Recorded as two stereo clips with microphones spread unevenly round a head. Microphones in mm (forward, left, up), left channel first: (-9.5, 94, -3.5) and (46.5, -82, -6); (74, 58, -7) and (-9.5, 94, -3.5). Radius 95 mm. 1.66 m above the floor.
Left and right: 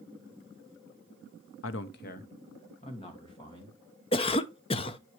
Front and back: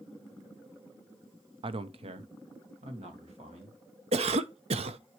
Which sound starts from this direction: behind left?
A man speaking, at 1.6 s.